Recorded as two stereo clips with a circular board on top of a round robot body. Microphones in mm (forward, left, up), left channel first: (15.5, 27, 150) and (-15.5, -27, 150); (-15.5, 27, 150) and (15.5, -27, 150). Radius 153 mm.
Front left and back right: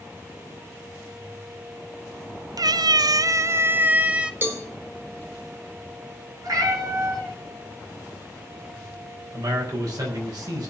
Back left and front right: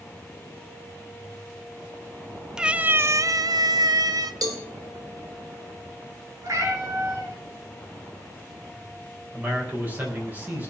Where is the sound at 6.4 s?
95° right, 6 m.